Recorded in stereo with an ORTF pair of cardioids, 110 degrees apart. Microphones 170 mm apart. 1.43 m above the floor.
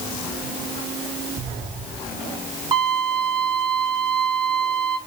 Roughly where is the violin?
Ahead right.